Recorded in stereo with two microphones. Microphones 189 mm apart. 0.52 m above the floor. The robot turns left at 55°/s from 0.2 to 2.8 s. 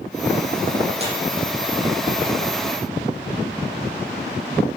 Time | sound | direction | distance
1.0 | tearing paper | 35° right (ahead or behind) | 8 m